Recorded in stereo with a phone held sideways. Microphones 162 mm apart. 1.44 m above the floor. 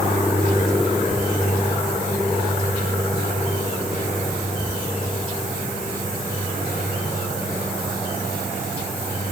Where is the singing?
I don't hear singing.